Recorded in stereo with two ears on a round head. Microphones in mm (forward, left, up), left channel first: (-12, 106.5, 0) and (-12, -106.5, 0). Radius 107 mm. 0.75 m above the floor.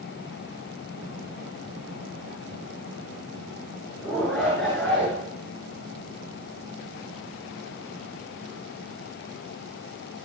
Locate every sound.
4.0 s a shout: 5° left (ahead or behind), 8.5 m